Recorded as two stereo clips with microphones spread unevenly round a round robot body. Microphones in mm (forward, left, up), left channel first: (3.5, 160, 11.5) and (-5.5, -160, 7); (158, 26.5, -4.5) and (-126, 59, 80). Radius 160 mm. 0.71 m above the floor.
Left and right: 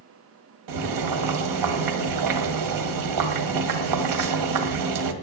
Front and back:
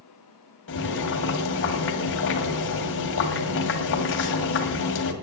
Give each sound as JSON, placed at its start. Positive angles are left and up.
{"t": 0.7, "sound": "boiling", "azimuth_deg": -60, "distance_m": 1.8}